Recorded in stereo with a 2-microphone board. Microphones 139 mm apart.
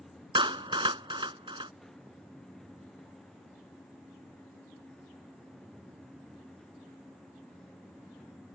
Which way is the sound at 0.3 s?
35° right (ahead or behind).